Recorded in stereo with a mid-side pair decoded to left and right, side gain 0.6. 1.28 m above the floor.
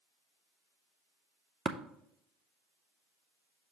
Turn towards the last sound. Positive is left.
turn(degrees=-30)